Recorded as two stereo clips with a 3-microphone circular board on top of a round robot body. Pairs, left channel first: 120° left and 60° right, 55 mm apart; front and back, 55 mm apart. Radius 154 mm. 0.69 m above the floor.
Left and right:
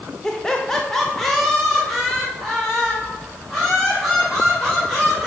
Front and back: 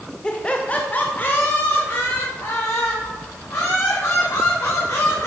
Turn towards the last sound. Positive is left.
turn(degrees=25)